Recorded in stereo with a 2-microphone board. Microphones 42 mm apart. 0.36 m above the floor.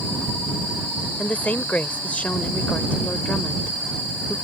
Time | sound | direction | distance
1.2 | a woman speaking | 35° left (ahead or behind) | ?